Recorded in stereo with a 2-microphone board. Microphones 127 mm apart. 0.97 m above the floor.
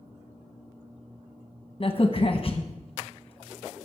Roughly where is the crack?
Left.